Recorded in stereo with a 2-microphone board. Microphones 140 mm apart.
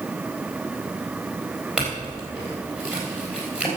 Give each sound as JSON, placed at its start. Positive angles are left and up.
{"t": 1.8, "sound": "a clink", "side_deg": -5, "distance_m": 4.0}